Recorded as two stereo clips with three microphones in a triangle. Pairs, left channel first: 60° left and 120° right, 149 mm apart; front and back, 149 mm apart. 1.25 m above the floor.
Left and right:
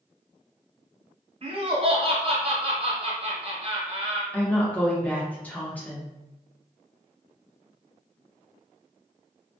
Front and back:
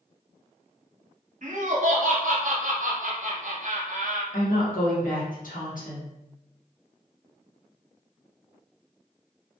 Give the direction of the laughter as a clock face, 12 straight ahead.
5 o'clock.